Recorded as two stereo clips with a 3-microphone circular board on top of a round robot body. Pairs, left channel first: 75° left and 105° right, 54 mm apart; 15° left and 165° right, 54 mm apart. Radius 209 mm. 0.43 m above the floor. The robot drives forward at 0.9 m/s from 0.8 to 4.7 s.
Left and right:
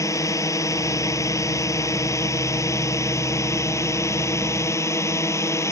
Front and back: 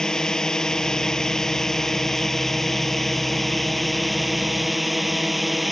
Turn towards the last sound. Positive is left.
turn(degrees=105)